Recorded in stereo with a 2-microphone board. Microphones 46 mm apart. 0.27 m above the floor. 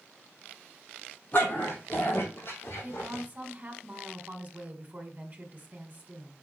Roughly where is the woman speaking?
Right.